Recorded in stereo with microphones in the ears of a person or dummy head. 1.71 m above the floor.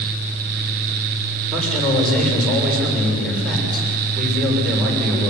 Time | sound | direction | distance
1.5 | a man speaking | centre (ahead or behind) | 6.5 m